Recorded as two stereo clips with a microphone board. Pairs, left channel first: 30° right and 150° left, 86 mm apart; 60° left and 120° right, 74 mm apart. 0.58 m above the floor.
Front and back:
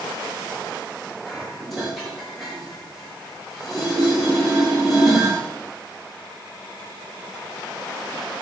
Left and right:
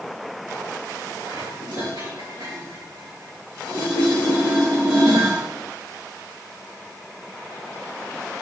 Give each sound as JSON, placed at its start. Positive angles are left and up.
{"t": 1.3, "sound": "dishes clattering", "azimuth_deg": -120, "distance_m": 6.5}